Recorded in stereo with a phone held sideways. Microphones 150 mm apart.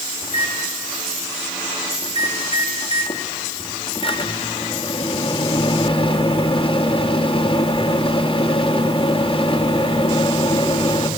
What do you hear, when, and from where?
0.2 s a microwave: 35° left (ahead or behind), 1.4 m